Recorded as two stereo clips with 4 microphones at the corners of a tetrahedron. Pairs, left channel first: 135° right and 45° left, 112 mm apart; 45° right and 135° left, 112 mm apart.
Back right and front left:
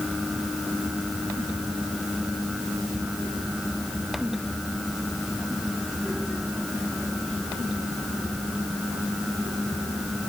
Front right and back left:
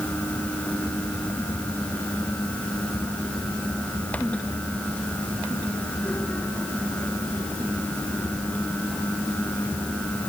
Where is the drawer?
No drawer in this recording.